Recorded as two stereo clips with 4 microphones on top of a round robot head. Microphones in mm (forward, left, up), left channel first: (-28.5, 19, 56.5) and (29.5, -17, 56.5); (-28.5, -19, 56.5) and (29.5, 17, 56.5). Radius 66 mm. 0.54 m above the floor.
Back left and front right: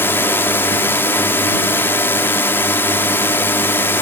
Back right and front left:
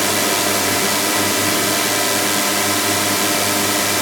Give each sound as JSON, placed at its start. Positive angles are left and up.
{"t": 0.0, "sound": "a drone", "azimuth_deg": 120}